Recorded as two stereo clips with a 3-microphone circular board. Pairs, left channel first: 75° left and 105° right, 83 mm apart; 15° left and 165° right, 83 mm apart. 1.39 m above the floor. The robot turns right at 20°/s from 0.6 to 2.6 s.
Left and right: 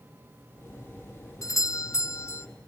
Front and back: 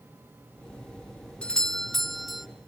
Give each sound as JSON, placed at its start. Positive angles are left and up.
{"t": 1.4, "sound": "a doorbell", "azimuth_deg": 90, "distance_m": 0.7}